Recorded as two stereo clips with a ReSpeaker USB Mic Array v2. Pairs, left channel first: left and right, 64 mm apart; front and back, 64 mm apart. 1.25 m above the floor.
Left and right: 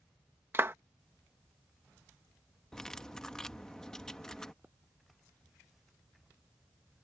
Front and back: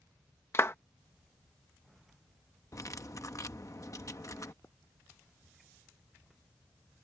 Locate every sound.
0.5 s a clap: 45° right
2.7 s cutlery clinking: 10° left
4.6 s a pop: 30° right